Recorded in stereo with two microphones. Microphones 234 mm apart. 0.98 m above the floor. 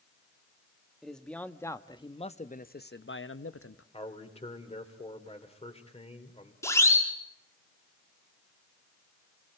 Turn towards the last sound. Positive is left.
turn(degrees=10)  # may be behind; listen again after turning